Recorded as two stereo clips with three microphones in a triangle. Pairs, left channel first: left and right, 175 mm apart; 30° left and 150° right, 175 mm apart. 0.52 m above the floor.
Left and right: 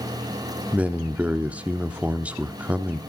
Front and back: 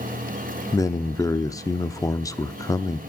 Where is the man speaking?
20° right, 0.7 m.